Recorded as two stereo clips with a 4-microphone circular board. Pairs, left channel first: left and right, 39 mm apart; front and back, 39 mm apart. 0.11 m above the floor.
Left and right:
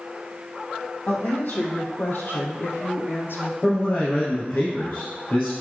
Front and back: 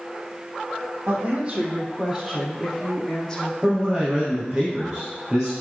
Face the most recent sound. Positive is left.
turn(degrees=110)